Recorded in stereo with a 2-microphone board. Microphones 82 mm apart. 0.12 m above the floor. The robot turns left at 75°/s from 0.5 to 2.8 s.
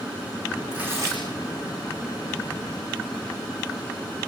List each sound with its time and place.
0.7 s tearing paper: 10° right, 10 m; by 1.2 s 55° right, 10 m